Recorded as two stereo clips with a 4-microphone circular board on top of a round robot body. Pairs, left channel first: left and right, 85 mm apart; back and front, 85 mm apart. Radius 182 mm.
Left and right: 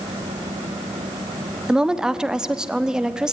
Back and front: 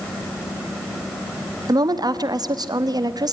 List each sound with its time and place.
1.7 s a woman speaking: 10° right, 1.5 m